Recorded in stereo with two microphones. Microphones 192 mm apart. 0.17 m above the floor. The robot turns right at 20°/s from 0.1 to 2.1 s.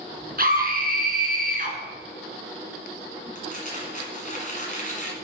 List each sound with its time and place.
0.4 s a scream: 50° right (ahead or behind), 1.8 m; by 1.8 s 45° right (ahead or behind), 1.8 m
3.4 s crumpling: 45° left (ahead or behind), 1.8 m